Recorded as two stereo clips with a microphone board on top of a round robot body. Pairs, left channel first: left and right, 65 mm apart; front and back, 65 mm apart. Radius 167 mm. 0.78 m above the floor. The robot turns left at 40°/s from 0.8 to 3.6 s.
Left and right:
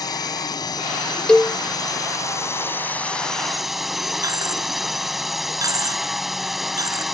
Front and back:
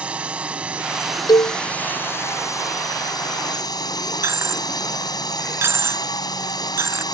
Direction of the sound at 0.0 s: 110° left.